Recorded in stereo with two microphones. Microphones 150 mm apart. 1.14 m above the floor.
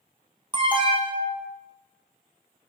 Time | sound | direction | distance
0.5 | an alarm | 30° right (ahead or behind) | 1.2 m